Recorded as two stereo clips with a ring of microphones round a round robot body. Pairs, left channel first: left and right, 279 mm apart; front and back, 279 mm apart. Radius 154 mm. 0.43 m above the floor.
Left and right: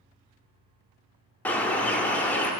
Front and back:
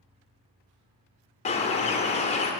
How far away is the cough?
No cough in this recording.